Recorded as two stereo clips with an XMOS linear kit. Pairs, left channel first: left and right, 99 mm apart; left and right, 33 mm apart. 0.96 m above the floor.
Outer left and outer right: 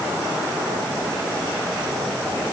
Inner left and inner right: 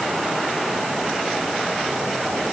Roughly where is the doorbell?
No doorbell in this recording.